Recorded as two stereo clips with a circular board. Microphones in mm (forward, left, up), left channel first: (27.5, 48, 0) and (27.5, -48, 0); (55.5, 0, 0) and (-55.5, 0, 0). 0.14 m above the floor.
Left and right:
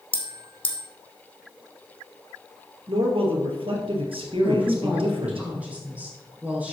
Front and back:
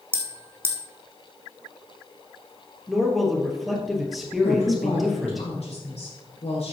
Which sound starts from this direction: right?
A man speaking, at 2.9 s.